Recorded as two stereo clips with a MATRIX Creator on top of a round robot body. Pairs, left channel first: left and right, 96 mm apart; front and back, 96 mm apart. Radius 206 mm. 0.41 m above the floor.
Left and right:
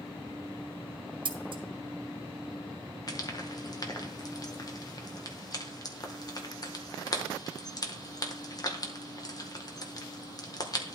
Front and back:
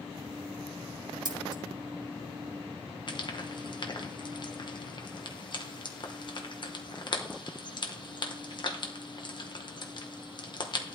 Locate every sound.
1.2 s scissors: 130° right, 1.0 m
3.1 s frying: 40° left, 1.5 m